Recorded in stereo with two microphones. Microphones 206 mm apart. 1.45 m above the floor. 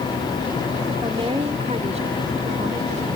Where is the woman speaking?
25° right (ahead or behind); by 3.2 s 40° right (ahead or behind).